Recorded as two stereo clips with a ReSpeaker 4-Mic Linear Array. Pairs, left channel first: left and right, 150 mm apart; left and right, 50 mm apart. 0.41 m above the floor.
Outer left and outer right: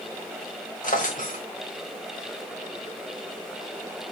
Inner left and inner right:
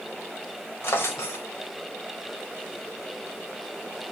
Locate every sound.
0.8 s a drawer: 60° left (ahead or behind), 1.2 m